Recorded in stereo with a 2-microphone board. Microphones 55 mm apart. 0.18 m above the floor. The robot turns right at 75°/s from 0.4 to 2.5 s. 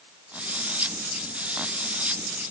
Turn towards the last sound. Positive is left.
No sound to turn to.